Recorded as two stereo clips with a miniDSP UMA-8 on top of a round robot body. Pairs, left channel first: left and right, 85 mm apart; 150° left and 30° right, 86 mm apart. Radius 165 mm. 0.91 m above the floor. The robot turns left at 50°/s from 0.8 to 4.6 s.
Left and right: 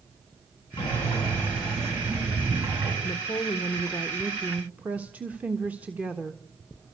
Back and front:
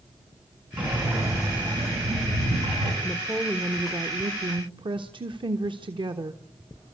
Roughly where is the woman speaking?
Ahead left.